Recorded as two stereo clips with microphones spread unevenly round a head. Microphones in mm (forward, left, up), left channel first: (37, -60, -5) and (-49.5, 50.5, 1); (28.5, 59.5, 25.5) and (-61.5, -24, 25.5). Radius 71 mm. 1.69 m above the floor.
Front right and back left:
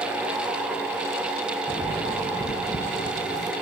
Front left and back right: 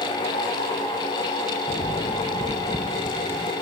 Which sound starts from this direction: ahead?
Footsteps, at 1.7 s.